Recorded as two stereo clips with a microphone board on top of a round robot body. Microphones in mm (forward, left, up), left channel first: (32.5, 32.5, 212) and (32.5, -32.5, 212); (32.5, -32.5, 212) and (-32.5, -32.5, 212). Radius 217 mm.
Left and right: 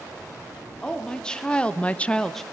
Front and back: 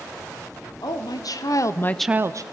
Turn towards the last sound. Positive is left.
turn(degrees=175)